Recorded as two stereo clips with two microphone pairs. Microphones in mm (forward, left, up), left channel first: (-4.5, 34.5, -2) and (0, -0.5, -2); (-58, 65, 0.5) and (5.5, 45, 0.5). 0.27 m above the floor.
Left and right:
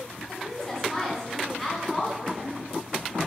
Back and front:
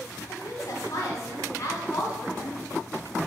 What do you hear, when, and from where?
0.3 s a woman speaking: 170° left, 1.8 m; by 2.6 s 165° right, 2.5 m